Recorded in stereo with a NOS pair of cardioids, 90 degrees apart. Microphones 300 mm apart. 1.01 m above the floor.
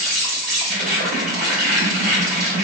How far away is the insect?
About 1.2 m.